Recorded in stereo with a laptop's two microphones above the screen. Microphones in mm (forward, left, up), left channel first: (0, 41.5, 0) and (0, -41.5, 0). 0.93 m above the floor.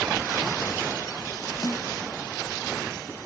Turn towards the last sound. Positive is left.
turn(degrees=55)  # may be behind; listen again after turning